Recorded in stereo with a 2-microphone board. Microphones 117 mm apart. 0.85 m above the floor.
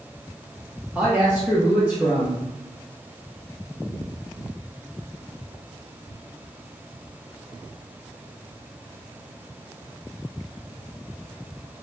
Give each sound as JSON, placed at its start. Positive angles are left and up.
{"t": 0.9, "sound": "a woman speaking", "side_deg": -10, "distance_m": 0.6}